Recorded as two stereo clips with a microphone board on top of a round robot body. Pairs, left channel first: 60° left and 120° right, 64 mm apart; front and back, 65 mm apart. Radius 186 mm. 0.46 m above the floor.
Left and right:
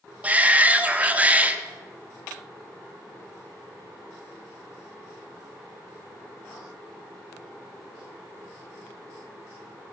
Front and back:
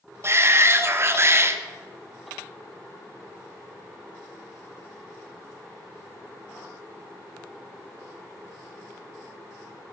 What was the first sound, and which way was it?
A shout, 175° right.